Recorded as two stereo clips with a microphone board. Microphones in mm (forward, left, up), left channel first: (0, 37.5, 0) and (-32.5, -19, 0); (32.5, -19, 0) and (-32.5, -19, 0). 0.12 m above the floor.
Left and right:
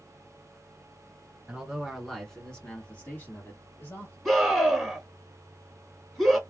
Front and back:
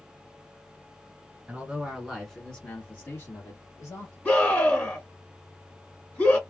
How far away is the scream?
About 1.4 m.